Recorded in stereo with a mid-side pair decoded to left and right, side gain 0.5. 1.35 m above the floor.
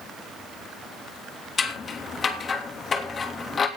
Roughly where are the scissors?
Ahead left.